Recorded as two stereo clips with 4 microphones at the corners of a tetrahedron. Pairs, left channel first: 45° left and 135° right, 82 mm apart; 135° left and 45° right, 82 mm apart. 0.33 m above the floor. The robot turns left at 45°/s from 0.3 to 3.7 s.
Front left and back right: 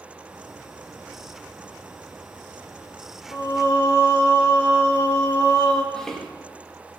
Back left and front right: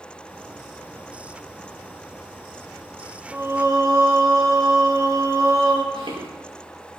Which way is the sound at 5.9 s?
40° right.